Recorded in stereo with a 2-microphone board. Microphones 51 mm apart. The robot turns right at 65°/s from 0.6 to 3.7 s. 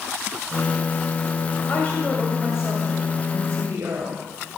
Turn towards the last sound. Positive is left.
turn(degrees=-90)